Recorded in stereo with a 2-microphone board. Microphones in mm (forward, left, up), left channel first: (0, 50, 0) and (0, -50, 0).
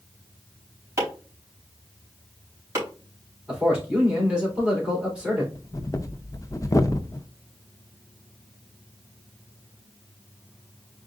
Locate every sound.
1.0 s chopping: 30° right (ahead or behind), 3.5 m
3.5 s a man speaking: 10° right (ahead or behind), 3.5 m
5.5 s breathing: 35° left (ahead or behind), 0.6 m